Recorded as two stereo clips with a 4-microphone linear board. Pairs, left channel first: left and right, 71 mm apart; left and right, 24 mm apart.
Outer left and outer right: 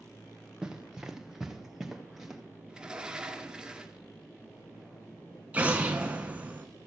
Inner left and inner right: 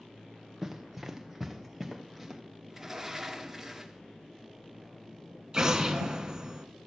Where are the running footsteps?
10° right (ahead or behind), 0.9 m; by 2.4 s 5° right (ahead or behind), 2.0 m.